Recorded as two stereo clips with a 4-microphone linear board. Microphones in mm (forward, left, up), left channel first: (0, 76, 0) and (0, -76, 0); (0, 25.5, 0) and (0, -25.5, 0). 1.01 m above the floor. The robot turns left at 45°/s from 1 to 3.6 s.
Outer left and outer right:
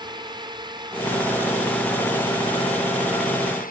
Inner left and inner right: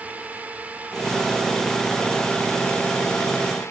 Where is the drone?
150° right; by 3.7 s 95° left.